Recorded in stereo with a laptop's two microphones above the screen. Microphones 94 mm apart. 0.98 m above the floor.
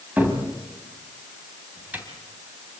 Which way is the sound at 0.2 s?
20° right (ahead or behind).